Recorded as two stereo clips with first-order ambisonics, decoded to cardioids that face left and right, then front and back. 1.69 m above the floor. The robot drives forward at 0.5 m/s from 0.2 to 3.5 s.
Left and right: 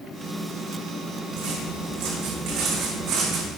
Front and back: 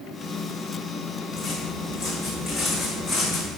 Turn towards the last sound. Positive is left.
turn(degrees=-95)